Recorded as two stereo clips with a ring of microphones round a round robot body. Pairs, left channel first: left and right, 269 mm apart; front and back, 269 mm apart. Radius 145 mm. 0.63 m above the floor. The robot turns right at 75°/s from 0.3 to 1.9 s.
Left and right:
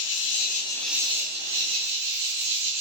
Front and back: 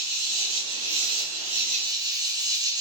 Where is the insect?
135° left, 1.3 m; by 2.8 s 105° right, 1.3 m.